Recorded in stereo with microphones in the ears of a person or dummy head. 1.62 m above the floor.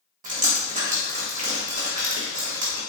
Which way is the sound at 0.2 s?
45° right (ahead or behind).